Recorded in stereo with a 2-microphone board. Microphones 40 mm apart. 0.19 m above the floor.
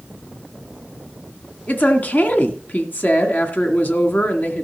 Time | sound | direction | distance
1.7 | a woman speaking | 45° left (ahead or behind) | 1.7 m